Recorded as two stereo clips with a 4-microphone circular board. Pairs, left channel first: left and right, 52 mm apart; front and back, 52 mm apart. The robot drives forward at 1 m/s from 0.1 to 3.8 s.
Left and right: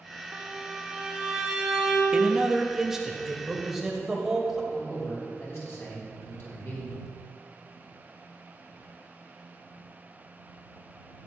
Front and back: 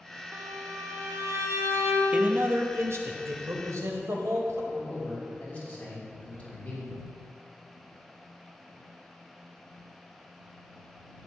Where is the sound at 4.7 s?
60° left, 4 m.